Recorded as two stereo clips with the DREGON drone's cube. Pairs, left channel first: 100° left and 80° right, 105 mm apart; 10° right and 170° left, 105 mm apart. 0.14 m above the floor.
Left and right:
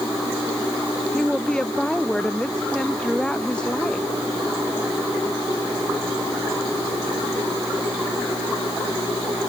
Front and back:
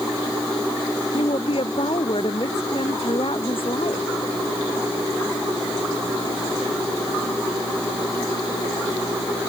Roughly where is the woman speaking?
Ahead.